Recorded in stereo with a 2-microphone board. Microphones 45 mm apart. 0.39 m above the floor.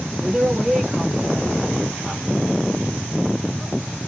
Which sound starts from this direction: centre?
A woman speaking, at 0.2 s.